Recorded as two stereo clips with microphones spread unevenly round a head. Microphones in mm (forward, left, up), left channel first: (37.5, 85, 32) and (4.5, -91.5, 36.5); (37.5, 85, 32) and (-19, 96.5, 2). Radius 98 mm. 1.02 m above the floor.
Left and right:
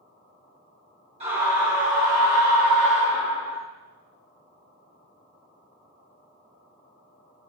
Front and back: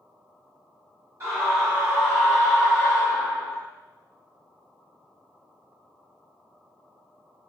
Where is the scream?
160° right, 1.5 m; by 3.6 s 125° right, 2.5 m.